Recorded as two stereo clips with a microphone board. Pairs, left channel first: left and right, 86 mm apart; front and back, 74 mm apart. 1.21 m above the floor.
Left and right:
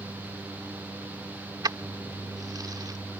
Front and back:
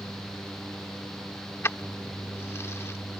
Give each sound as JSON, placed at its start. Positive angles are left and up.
{"t": 1.6, "sound": "keys jangling", "azimuth_deg": -55}